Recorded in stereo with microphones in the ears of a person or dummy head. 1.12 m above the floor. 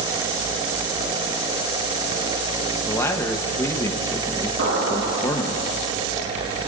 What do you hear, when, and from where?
2.9 s a man speaking: 15° left (ahead or behind), 0.8 m
4.6 s an explosion: 70° right (ahead or behind), 4.5 m